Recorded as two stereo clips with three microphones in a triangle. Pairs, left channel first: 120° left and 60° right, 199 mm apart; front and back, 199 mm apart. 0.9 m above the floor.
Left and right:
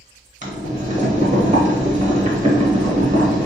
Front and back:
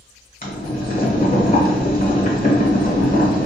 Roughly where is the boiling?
Ahead.